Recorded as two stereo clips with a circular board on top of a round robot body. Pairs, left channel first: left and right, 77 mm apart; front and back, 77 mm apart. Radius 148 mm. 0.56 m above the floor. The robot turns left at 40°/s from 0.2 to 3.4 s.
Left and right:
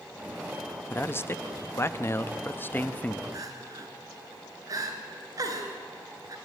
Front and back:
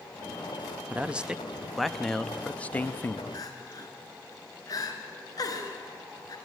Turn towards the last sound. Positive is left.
turn(degrees=-45)